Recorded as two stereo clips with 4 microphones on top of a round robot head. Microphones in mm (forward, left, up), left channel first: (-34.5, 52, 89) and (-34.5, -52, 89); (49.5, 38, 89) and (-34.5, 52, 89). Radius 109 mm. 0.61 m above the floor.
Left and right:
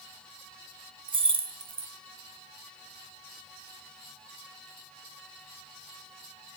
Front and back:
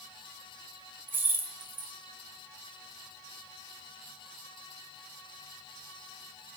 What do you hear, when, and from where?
1.1 s keys jangling: 125° right, 0.7 m